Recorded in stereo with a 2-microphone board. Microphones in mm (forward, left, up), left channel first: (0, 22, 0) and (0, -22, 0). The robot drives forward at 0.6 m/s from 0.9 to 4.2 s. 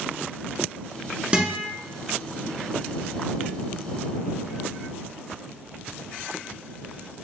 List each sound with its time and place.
1.3 s a guitar: 25° right (ahead or behind), 1.0 m